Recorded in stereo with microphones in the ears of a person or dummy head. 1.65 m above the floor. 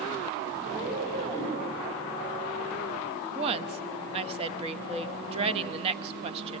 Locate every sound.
0.6 s a cat meowing: 45° right (ahead or behind), 4 m
3.4 s a woman speaking: 35° right (ahead or behind), 1.0 m